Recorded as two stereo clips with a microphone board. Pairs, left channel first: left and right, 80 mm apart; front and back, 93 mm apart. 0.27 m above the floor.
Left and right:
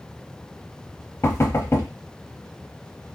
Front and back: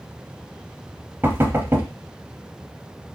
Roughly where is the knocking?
Behind left.